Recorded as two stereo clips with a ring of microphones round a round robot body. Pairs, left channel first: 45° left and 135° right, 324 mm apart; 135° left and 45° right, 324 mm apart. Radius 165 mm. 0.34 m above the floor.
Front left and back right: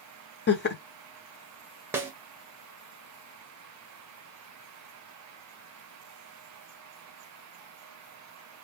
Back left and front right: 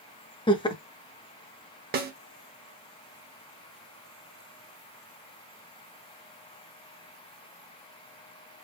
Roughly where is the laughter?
Left.